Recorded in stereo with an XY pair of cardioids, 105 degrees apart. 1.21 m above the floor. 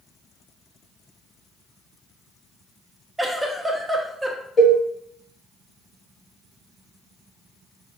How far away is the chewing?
I don't hear chewing.